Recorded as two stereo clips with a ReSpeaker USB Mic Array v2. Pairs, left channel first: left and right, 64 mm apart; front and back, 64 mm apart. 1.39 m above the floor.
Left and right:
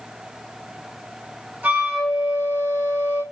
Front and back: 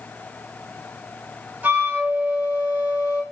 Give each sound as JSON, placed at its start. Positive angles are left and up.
{"t": 1.6, "sound": "a flute", "azimuth_deg": -135, "distance_m": 1.1}